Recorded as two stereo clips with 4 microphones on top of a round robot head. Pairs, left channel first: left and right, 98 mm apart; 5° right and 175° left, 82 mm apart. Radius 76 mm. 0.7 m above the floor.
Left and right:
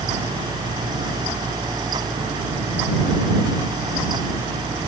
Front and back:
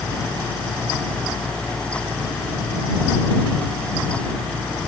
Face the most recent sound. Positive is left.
No sound to turn to.